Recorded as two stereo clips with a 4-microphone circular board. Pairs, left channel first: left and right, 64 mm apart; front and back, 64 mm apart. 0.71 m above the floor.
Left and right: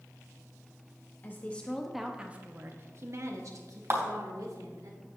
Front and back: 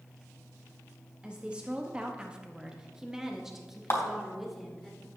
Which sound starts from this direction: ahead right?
A clap, at 3.9 s.